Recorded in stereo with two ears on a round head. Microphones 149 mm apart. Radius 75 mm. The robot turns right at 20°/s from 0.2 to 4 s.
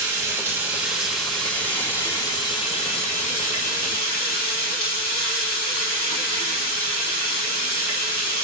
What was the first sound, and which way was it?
Running water, 20° right.